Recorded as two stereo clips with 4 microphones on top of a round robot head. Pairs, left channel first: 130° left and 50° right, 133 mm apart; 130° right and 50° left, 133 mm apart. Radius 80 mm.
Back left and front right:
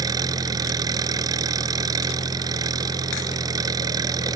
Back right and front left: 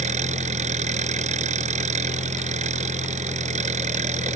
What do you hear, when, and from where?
0.0 s an engine running: 10° left